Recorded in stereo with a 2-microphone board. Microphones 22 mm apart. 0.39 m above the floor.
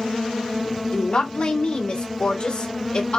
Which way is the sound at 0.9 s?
55° left (ahead or behind).